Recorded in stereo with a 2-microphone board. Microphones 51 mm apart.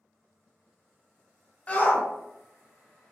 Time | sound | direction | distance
1.7 | a shout | 25° left (ahead or behind) | 0.7 m